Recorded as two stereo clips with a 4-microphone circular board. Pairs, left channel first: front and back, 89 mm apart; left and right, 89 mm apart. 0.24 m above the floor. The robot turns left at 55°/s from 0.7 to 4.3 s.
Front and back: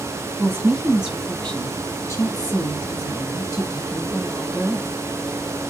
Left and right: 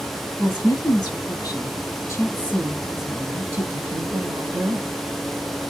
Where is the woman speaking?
105° left, 1.5 m; by 4.9 s 90° right, 1.5 m.